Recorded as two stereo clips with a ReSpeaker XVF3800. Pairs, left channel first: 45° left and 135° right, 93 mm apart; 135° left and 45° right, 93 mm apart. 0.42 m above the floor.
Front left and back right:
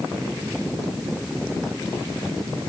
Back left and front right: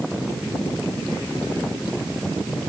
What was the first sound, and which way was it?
Only background noise.